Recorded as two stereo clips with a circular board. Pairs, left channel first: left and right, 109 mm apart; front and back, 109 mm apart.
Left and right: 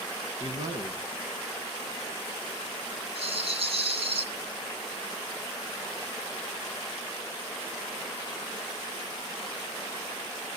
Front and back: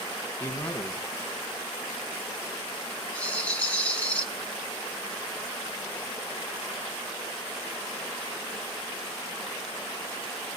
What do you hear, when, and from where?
0.4 s a man speaking: 60° right, 2.5 m
3.1 s a rattle: 75° right, 2.5 m